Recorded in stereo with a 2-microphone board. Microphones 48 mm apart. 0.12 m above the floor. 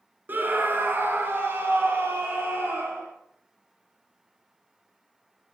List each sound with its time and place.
0.3 s a scream: 40° right (ahead or behind), 1.4 m; by 3.1 s 50° right (ahead or behind), 2.5 m